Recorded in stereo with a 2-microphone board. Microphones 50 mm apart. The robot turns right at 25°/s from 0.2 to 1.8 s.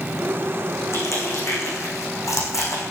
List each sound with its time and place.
0.9 s crushing: 70° left (ahead or behind), 5.5 m; by 2.8 s 85° left, 5.5 m